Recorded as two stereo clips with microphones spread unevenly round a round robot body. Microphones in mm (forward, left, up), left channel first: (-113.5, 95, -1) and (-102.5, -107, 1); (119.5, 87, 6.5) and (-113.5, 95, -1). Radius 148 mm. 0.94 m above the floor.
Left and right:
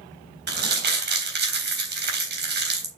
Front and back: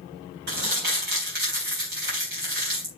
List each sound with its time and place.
0.5 s crumpling: 120° right, 3.5 m